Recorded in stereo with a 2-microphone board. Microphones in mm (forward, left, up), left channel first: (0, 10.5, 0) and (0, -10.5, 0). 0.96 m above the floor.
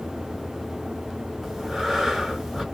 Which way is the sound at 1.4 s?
15° right (ahead or behind).